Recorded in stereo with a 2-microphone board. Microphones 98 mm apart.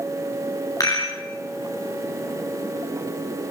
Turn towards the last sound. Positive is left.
turn(degrees=35)  # may be behind; listen again after turning